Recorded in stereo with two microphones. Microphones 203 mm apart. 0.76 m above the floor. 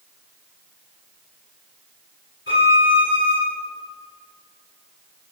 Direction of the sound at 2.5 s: 70° left (ahead or behind).